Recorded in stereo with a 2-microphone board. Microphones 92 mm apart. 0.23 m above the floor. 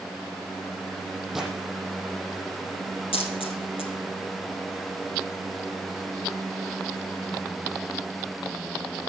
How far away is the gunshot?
About 8.5 m.